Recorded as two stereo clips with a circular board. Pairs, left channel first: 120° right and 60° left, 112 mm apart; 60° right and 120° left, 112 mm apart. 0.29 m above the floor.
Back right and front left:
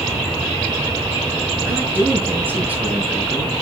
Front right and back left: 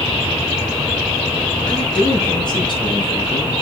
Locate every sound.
1.6 s a man speaking: 10° right, 4.5 m; by 3.6 s 20° right, 3.5 m